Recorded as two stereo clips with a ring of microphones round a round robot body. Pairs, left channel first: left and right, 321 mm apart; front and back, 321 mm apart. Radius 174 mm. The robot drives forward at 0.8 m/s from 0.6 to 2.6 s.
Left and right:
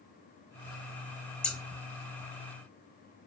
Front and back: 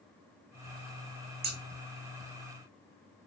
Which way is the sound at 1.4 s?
175° left.